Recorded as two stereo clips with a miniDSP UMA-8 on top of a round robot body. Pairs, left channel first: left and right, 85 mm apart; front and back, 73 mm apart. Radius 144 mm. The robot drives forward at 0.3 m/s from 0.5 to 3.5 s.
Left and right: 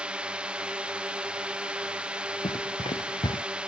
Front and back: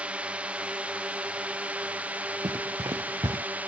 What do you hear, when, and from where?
0.0 s a drone: 145° right; by 3.7 s 150° right
2.4 s running footsteps: 130° left